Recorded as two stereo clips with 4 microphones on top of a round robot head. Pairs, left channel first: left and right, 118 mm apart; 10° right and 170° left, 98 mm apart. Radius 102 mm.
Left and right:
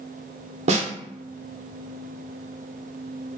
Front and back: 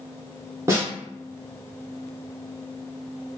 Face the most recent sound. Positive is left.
turn(degrees=-125)